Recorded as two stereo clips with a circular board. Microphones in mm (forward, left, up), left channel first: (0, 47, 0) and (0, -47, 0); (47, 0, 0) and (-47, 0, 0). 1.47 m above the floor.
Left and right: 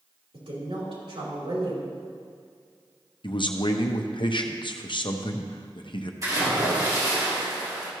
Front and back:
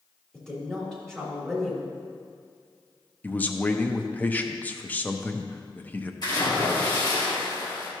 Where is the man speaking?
70° left, 0.7 m.